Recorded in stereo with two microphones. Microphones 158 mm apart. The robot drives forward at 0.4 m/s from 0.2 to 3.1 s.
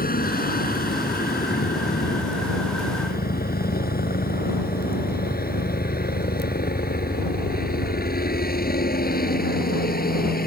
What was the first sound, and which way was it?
A helicopter, 65° left (ahead or behind).